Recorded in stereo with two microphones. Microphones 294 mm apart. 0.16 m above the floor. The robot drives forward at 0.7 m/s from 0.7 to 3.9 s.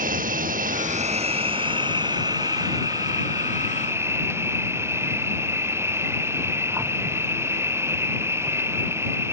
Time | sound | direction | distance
0.0 | an insect | 30° right (ahead or behind) | ?